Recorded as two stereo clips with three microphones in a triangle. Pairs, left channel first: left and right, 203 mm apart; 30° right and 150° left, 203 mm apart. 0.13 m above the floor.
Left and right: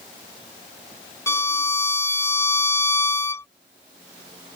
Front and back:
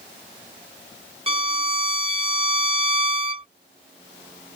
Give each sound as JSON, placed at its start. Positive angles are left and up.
{"t": 1.3, "sound": "a violin", "azimuth_deg": 150}